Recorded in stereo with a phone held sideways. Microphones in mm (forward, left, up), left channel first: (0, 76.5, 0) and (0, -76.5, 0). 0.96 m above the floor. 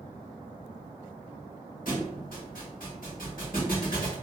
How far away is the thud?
About 1.2 m.